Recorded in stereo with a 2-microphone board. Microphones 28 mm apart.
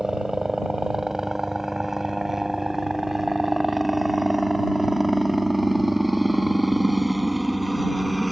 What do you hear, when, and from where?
0.0 s a helicopter: 20° right (ahead or behind); by 8.3 s 5° right (ahead or behind)